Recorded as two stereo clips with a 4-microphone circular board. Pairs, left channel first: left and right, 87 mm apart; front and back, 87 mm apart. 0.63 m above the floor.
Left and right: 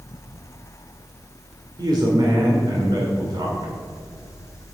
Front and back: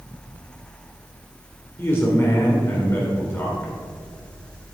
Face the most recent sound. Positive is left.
turn(degrees=-60)